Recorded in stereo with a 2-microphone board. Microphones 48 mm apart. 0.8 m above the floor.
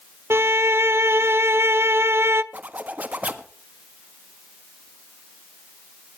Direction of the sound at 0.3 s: 55° right (ahead or behind).